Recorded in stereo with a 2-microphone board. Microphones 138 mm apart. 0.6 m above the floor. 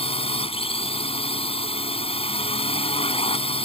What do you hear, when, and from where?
0.0 s a drone: 45° left (ahead or behind)